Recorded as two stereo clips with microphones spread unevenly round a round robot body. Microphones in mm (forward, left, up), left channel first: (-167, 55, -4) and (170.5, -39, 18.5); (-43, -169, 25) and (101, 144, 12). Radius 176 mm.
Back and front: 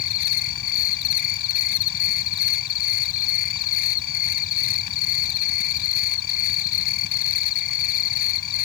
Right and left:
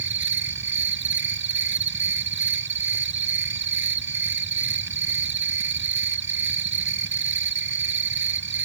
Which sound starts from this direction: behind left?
An insect, at 0.0 s.